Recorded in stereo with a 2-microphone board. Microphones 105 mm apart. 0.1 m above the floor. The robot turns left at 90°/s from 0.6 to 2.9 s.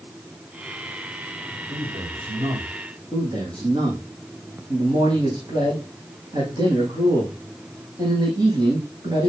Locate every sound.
1.7 s a man speaking: 50° right, 4.5 m; by 2.8 s 145° right, 4.5 m
3.1 s a man speaking: 45° right (ahead or behind), 5.5 m